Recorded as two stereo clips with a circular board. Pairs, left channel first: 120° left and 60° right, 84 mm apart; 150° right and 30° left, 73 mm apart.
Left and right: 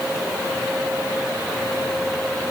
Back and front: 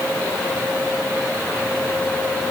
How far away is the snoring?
I don't hear snoring.